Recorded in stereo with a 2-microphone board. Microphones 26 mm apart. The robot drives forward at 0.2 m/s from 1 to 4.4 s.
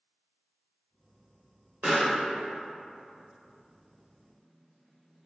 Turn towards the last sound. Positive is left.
turn(degrees=-35)  # may be behind; listen again after turning